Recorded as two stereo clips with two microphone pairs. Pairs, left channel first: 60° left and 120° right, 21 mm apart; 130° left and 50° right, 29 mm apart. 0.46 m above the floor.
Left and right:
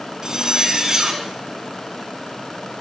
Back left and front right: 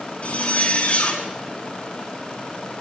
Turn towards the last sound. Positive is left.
turn(degrees=165)